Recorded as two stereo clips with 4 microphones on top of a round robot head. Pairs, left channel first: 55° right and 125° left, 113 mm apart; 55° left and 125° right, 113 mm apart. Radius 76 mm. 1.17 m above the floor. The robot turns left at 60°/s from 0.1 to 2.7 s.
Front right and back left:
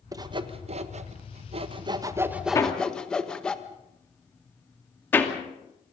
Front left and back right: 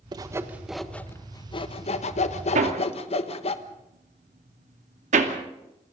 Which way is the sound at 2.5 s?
120° right.